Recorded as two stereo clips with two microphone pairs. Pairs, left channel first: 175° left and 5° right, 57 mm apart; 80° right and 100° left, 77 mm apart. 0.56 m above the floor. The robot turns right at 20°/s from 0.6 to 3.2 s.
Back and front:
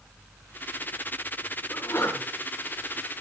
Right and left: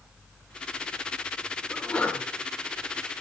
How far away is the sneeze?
About 5.5 m.